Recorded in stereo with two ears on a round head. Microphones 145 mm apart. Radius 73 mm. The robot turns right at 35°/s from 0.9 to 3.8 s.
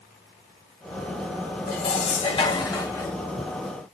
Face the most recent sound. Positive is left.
turn(degrees=-170)